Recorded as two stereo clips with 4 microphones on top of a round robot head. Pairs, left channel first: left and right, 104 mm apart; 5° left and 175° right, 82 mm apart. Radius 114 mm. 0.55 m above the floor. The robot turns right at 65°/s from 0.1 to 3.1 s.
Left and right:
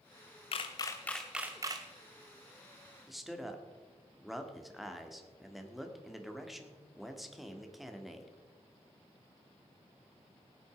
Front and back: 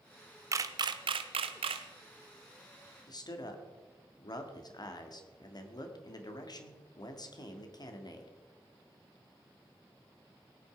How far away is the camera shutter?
About 0.6 m.